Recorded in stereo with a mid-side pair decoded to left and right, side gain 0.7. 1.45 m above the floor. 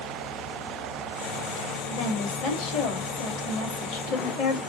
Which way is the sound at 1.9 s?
55° left.